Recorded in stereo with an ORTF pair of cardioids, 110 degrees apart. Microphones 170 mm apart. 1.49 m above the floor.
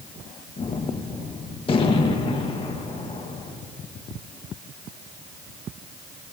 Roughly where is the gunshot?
Ahead left.